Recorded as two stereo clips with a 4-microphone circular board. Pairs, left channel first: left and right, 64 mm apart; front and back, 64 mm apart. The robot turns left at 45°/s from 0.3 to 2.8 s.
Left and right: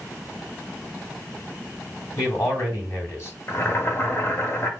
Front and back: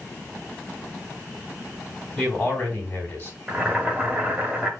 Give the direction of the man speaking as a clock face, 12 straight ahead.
9 o'clock.